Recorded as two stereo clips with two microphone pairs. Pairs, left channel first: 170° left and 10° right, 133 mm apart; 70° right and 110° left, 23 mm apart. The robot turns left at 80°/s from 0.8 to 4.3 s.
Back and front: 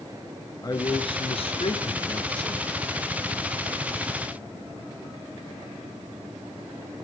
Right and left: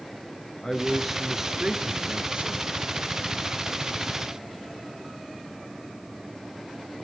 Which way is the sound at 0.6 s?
145° right.